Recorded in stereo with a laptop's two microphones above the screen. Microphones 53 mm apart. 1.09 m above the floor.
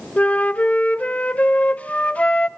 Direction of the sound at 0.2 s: 25° left (ahead or behind).